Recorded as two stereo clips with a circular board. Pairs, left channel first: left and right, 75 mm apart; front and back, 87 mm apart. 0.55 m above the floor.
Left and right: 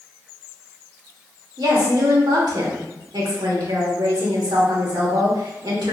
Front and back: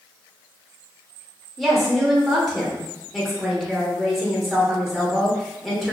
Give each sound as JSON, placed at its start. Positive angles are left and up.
{"t": 1.6, "sound": "a woman speaking", "azimuth_deg": -90, "distance_m": 1.2}